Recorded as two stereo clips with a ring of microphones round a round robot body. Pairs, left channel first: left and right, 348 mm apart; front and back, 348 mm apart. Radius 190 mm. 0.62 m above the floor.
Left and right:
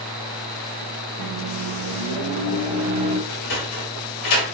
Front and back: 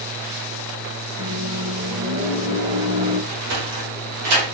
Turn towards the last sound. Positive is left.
turn(degrees=140)